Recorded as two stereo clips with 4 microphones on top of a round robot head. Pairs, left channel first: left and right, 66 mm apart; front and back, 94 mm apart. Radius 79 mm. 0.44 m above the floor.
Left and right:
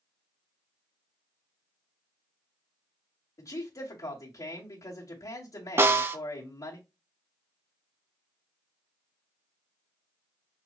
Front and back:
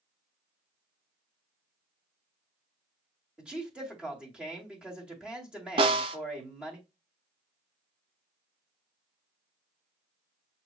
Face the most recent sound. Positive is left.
turn(degrees=-140)